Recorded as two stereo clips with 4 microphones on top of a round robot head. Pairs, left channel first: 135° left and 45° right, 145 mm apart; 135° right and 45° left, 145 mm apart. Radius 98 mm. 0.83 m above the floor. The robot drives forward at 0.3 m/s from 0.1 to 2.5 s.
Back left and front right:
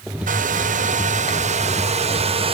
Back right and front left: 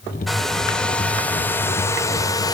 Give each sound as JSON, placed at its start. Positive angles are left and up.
{"t": 0.3, "sound": "a hair dryer", "azimuth_deg": -50, "distance_m": 1.5}